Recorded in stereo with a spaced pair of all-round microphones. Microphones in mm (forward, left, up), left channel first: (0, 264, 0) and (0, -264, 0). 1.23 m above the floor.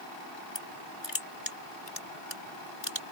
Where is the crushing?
55° left (ahead or behind).